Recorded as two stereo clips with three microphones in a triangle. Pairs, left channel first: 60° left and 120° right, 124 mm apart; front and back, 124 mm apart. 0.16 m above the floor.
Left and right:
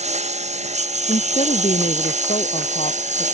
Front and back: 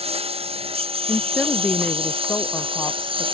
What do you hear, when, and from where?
0.0 s a lawn mower: 145° right; by 3.4 s 135° right
1.1 s a woman speaking: 85° left